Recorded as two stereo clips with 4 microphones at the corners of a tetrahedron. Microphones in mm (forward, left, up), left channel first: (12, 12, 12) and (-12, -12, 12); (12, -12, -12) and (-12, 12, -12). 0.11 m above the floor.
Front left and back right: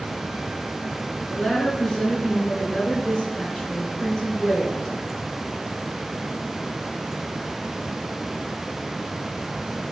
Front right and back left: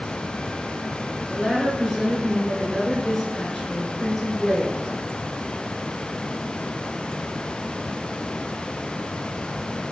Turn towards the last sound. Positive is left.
turn(degrees=10)